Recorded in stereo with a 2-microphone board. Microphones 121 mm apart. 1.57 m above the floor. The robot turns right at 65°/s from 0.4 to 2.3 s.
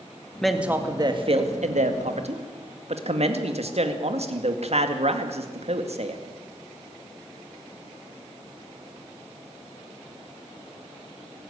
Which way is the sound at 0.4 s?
175° left.